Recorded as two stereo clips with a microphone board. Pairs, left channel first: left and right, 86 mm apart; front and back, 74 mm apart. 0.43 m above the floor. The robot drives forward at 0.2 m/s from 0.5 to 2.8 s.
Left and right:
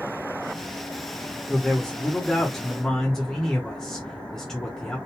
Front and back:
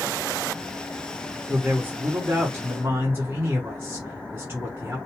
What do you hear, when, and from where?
1.5 s a man speaking: 160° left, 0.8 m; by 5.0 s 170° left, 0.9 m